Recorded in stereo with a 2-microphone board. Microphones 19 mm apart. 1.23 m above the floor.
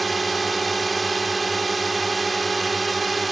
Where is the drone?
5° right (ahead or behind).